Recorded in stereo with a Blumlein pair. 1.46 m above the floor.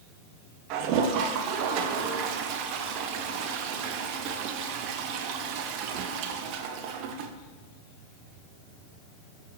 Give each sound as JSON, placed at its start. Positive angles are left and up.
{"t": 0.7, "sound": "a toilet flushing", "azimuth_deg": -40, "distance_m": 0.9}